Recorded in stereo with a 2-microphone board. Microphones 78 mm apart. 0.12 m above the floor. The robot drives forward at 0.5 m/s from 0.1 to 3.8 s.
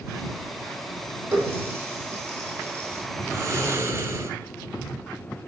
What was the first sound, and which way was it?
A running tap, 30° right (ahead or behind).